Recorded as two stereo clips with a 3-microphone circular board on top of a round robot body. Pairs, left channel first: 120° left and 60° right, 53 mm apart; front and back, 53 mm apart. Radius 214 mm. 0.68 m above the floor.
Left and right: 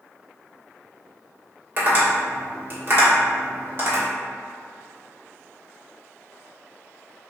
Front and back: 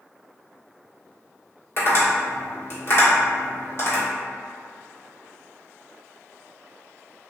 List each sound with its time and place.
1.8 s tapping: 25° right, 1.6 m